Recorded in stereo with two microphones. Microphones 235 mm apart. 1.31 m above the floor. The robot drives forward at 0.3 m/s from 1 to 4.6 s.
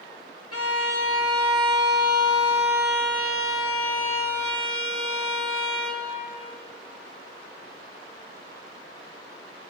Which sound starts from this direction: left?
A violin, at 0.5 s.